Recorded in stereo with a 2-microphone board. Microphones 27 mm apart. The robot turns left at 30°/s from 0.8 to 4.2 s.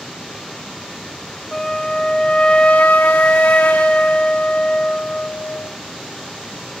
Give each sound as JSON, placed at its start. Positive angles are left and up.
{"t": 1.5, "sound": "a flute", "azimuth_deg": 160, "distance_m": 0.6}